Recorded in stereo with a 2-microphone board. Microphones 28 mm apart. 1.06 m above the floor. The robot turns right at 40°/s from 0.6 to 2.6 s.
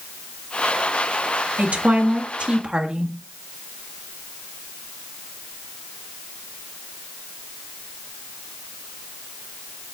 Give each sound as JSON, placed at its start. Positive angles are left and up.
{"t": 1.6, "sound": "a woman speaking", "azimuth_deg": -75, "distance_m": 1.3}